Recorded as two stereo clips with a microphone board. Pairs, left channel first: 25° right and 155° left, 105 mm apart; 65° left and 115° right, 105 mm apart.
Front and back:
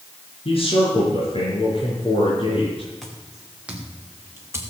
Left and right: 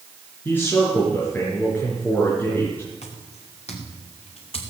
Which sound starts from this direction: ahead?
A man speaking, at 0.5 s.